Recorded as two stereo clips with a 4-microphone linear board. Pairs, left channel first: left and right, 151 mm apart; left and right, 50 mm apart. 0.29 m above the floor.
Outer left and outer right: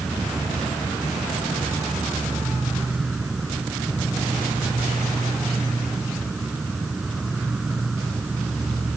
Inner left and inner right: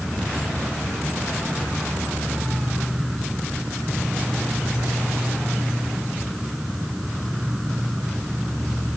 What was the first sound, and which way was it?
An insect, 5° right (ahead or behind).